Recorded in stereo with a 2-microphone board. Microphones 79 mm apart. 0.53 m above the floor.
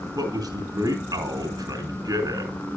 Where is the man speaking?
65° right (ahead or behind), 5 m.